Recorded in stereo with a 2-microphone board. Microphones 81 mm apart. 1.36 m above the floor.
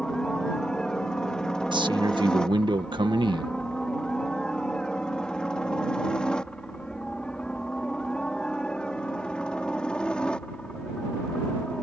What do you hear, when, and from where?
0.0 s a helicopter: 10° left (ahead or behind)
1.7 s a man speaking: 70° right (ahead or behind)